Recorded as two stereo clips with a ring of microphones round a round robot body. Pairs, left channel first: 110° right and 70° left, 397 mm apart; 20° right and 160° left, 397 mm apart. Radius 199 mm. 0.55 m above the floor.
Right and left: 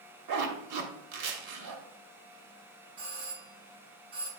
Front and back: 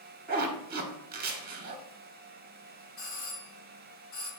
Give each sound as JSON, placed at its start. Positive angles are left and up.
{"t": 0.3, "sound": "a zipper", "azimuth_deg": 95, "distance_m": 1.3}
{"t": 3.0, "sound": "a doorbell", "azimuth_deg": 25, "distance_m": 1.7}